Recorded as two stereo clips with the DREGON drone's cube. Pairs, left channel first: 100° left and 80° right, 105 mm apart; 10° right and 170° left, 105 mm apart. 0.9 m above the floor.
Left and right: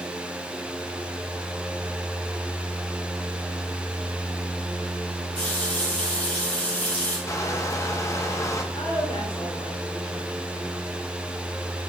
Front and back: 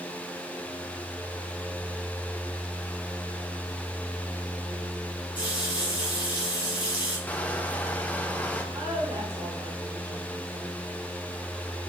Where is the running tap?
25° left, 4 m.